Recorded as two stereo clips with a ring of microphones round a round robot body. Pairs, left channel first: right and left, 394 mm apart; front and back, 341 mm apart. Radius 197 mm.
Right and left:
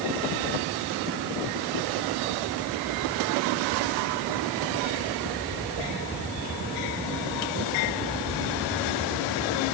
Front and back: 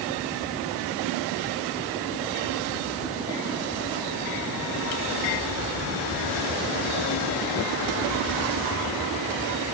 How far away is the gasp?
No gasp in this recording.